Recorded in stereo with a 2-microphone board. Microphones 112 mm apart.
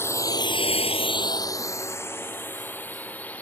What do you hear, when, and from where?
0.0 s a drone: 25° left (ahead or behind); by 3.4 s 15° left (ahead or behind)